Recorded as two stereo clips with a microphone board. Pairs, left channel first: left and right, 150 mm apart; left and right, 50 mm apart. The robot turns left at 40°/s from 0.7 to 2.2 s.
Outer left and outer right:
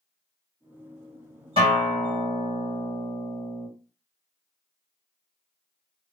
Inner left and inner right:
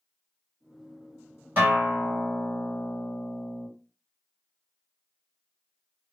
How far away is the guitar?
About 2 m.